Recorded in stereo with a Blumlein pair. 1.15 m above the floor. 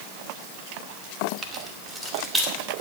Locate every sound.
1.4 s keys jangling: 25° right, 1.8 m; by 2.8 s 5° right, 3.5 m